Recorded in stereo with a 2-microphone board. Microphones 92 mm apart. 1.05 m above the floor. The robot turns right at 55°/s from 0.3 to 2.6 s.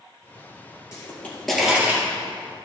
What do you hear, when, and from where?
0.9 s a pop: 30° left (ahead or behind), 4 m; by 2.0 s 30° right (ahead or behind), 4 m